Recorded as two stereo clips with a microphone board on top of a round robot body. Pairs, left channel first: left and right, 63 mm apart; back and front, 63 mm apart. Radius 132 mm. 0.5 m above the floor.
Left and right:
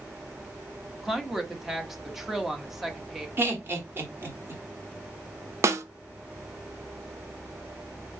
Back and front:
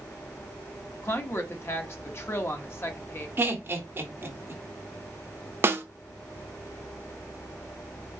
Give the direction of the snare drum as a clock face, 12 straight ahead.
2 o'clock.